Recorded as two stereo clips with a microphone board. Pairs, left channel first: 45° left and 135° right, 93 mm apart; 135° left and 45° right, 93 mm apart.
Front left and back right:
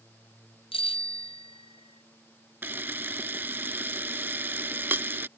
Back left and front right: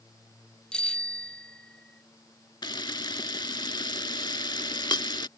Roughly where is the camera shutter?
Behind.